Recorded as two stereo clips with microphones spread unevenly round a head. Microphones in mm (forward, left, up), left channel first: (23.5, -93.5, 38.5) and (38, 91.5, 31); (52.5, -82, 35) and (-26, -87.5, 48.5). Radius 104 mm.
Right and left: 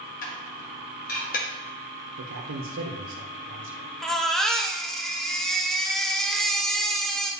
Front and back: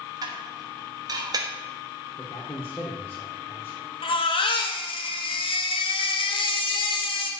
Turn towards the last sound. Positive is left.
turn(degrees=-5)